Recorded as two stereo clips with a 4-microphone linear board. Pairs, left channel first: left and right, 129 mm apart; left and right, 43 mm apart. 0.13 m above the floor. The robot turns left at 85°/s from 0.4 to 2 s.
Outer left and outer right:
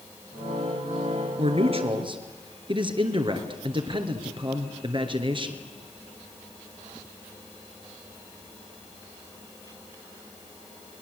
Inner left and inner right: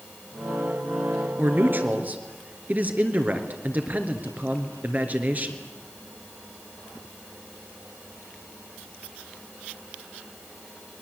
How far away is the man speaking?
About 2.5 m.